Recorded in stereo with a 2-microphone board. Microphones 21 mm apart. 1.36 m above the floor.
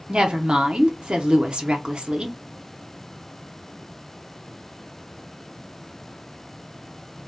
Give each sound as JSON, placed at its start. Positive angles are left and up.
{"t": 0.1, "sound": "a woman speaking", "side_deg": -45, "distance_m": 0.6}